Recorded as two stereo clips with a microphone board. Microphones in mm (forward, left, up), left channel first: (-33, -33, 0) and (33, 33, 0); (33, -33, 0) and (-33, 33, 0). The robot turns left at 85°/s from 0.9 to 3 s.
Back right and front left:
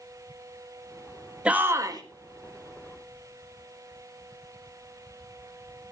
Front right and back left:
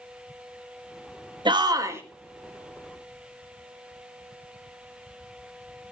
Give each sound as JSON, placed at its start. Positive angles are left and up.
{"t": 1.4, "sound": "a shout", "azimuth_deg": 120, "distance_m": 1.6}